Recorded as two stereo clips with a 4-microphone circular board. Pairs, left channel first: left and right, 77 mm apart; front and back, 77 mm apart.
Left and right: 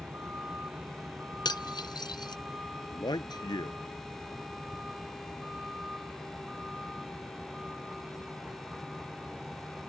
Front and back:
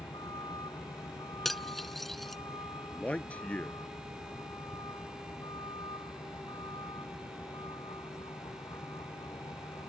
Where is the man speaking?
70° left.